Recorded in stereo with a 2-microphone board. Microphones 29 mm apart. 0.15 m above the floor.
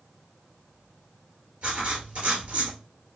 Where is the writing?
60° right (ahead or behind), 2 m.